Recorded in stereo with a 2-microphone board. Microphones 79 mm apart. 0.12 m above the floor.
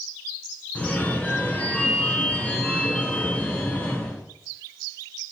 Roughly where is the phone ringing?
Centre.